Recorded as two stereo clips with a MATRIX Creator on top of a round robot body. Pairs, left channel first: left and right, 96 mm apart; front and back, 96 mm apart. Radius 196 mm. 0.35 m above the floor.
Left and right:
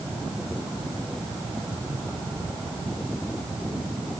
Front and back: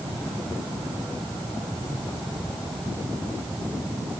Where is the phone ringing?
No phone ringing in this recording.